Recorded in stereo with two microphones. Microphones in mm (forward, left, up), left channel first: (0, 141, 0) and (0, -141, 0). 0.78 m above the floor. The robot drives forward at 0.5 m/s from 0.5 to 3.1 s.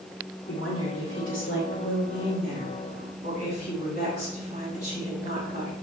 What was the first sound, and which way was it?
A woman speaking, 50° left (ahead or behind).